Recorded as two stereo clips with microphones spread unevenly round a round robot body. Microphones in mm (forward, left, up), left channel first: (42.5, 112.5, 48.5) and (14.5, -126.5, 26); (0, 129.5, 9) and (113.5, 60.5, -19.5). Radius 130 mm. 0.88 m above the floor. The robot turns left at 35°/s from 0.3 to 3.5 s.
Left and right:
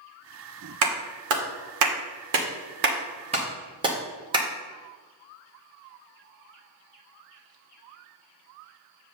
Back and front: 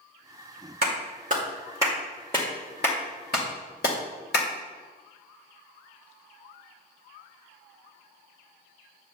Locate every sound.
0.8 s a clap: 75° right, 1.8 m; by 4.5 s 170° right, 1.8 m